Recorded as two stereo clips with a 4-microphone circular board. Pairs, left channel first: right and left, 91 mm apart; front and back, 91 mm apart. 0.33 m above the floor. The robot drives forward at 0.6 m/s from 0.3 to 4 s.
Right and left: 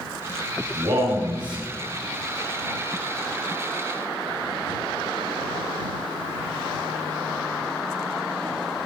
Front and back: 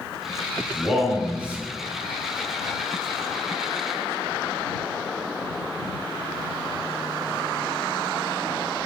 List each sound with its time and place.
0.7 s a man speaking: 95° left, 2 m; by 1.7 s 110° left, 2.5 m